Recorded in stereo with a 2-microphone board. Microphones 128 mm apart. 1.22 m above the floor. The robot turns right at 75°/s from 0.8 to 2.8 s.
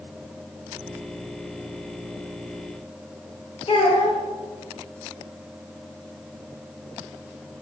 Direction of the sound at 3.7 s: 45° left (ahead or behind).